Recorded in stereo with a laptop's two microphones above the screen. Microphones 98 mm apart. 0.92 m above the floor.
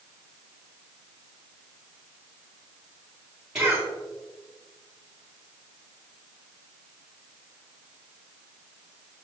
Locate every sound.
3.5 s a cough: 10° right (ahead or behind), 2.5 m